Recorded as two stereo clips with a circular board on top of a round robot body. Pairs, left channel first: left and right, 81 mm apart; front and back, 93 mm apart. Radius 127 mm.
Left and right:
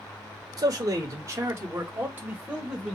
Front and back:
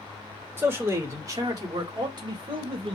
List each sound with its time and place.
0.6 s a man speaking: 120° right, 1.8 m; by 3.0 s 170° right, 1.9 m